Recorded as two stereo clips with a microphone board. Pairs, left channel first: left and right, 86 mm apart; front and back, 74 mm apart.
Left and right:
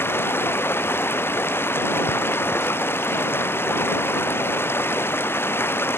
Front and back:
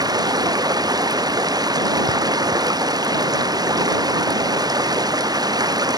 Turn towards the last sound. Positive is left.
turn(degrees=155)